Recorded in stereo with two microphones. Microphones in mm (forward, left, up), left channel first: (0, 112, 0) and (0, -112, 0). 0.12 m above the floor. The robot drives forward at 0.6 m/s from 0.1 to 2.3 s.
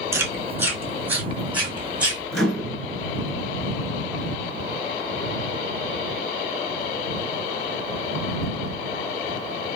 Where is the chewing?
10° right (ahead or behind), 1.0 m; by 2.2 s 5° right (ahead or behind), 2 m.